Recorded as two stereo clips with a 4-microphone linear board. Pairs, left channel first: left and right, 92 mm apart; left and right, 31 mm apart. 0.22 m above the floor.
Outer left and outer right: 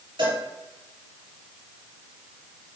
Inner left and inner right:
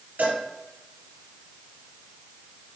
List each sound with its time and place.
0.2 s a cowbell: 65° right (ahead or behind), 4.5 m